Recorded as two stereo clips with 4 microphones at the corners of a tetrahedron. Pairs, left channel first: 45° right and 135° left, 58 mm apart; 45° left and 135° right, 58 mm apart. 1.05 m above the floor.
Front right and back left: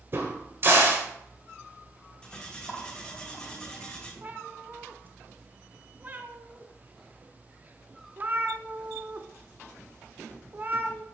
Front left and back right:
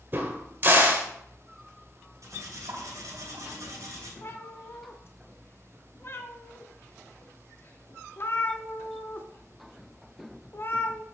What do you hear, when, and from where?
0.1 s a crack: 175° left, 1.5 m
2.2 s cutlery clinking: 120° right, 2.5 m
4.2 s a cat meowing: 80° left, 0.7 m